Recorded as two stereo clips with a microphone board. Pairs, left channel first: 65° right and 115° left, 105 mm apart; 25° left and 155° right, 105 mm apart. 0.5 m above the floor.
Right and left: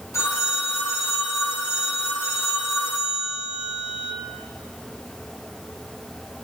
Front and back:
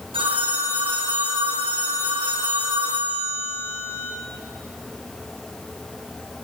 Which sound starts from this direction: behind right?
A phone ringing, at 0.1 s.